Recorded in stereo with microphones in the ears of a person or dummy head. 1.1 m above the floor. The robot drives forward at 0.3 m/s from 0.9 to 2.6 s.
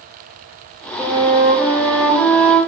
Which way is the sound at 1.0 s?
15° right (ahead or behind).